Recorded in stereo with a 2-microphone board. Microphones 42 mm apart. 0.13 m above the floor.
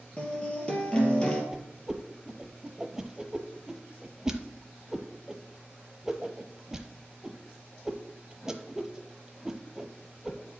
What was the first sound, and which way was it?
A guitar, 25° left (ahead or behind).